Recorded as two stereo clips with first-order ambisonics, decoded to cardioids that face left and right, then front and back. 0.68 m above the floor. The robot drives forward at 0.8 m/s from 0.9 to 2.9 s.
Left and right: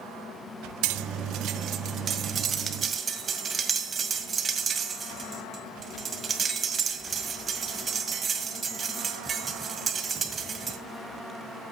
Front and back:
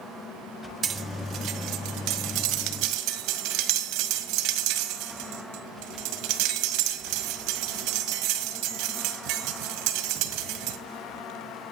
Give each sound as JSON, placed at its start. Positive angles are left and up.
{"t": 0.8, "sound": "cutlery clinking", "azimuth_deg": -115, "distance_m": 0.8}